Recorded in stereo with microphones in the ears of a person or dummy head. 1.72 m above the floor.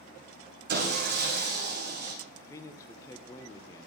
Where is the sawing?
55° right (ahead or behind), 2.5 m.